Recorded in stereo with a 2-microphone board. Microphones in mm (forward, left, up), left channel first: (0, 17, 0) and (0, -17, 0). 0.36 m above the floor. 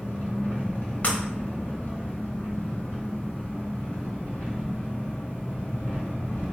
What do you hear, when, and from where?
0.0 s an engine running: 65° left (ahead or behind), 1.5 m
1.0 s breaking glass: 45° left (ahead or behind), 0.5 m